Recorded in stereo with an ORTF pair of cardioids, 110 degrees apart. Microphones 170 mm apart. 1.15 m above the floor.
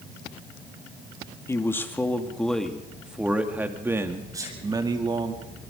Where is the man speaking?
15° left, 2.5 m; by 5.3 s 30° right, 3 m.